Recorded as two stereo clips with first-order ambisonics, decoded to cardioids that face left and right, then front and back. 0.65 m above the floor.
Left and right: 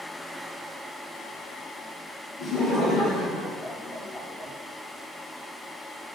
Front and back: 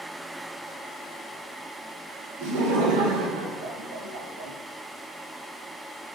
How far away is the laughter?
About 3.5 m.